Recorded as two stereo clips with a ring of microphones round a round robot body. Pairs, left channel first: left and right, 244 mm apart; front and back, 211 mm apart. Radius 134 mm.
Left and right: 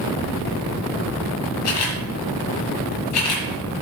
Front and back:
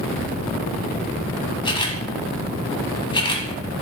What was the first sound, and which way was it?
A camera shutter, 70° left.